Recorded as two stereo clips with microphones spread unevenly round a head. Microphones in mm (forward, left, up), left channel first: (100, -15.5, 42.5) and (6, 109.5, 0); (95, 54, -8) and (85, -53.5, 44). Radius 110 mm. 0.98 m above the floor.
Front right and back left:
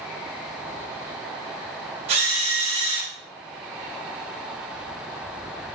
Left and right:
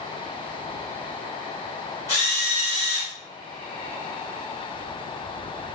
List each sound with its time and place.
2.1 s a drill: 175° right, 5 m